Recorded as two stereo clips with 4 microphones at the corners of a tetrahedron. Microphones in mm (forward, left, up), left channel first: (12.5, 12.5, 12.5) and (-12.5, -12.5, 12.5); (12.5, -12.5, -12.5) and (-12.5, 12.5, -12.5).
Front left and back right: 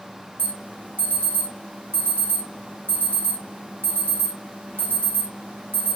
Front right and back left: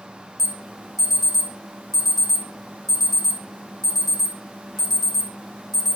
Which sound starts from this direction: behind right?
An alarm, at 0.4 s.